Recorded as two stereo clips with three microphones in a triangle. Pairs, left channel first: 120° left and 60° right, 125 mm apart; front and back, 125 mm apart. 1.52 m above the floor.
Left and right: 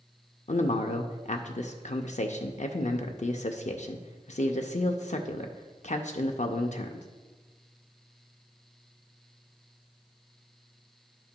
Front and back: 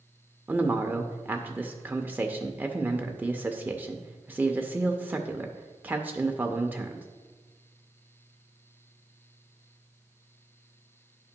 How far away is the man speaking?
About 0.5 m.